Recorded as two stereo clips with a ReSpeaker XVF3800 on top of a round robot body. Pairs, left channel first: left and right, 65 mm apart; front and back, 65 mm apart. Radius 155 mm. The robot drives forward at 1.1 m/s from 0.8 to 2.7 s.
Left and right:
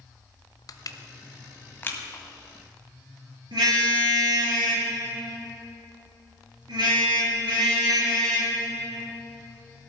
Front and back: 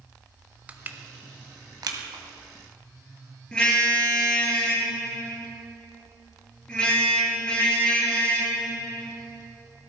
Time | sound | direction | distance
0.7 | crushing | 115° left | 1.0 m
3.5 | a car horn | 75° right | 5.5 m